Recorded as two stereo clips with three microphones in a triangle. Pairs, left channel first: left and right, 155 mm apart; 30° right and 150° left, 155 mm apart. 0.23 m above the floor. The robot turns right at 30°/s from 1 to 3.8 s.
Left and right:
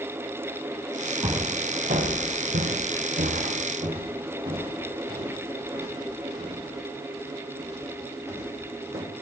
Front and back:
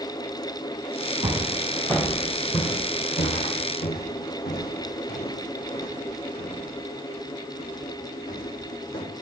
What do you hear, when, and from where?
1.2 s footsteps: 140° right, 3 m; by 9.0 s 15° right, 7 m